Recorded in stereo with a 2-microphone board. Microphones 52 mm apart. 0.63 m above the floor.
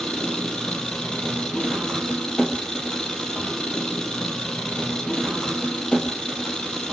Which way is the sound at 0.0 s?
15° left (ahead or behind).